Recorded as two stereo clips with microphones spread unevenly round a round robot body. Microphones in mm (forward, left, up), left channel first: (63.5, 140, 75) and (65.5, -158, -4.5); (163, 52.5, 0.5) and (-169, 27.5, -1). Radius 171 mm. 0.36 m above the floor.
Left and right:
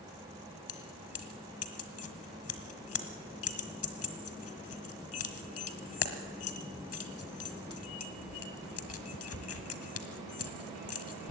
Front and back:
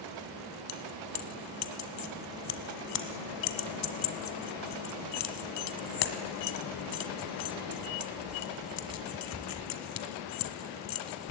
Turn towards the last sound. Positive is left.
turn(degrees=45)